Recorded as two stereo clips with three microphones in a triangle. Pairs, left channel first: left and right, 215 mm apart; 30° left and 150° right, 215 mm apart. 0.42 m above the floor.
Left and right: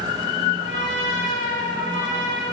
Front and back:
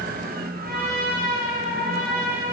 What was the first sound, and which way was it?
A trumpet, 110° right.